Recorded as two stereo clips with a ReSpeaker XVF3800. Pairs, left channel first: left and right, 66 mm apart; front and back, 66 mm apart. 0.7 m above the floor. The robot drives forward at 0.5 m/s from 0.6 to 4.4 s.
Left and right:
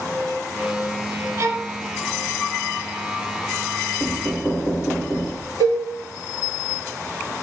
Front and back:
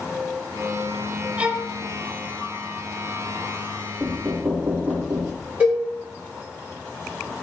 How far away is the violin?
About 0.5 m.